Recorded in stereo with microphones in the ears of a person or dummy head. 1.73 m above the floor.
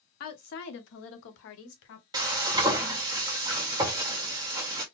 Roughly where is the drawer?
I don't hear a drawer.